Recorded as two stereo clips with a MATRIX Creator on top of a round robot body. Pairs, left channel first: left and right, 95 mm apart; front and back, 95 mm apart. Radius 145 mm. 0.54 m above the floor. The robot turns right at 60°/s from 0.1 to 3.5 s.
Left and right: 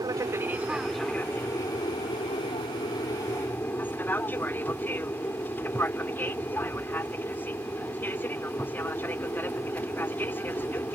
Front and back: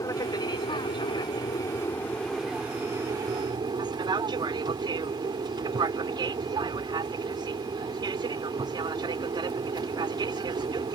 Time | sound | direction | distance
0.0 | an aircraft | 50° right | ?